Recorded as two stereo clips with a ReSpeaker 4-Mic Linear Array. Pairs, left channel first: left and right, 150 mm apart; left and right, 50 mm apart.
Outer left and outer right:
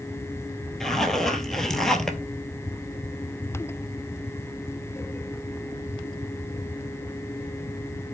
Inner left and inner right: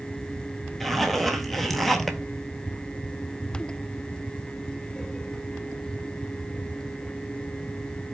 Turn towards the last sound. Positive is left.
turn(degrees=5)  # may be behind; listen again after turning